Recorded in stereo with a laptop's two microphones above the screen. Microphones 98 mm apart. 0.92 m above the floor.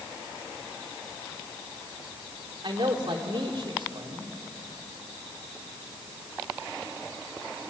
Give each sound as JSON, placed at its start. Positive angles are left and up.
{"t": 2.6, "sound": "a man speaking", "side_deg": -60, "distance_m": 2.5}